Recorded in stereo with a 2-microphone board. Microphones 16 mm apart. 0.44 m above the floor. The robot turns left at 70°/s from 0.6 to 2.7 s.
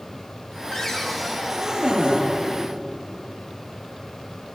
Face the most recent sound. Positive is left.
turn(degrees=-95)